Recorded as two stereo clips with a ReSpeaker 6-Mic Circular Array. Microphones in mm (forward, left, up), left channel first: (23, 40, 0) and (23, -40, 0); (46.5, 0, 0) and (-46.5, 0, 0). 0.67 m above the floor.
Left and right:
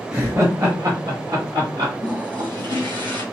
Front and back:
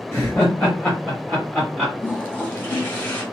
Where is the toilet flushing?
70° right, 1.6 m.